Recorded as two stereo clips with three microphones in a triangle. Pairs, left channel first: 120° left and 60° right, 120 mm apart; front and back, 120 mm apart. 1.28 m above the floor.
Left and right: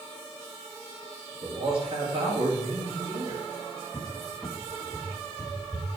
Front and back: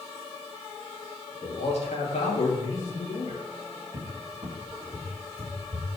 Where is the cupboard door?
160° right, 2.5 m.